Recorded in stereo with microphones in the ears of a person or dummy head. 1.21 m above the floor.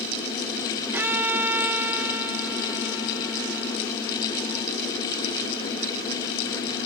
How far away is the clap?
I don't hear a clap.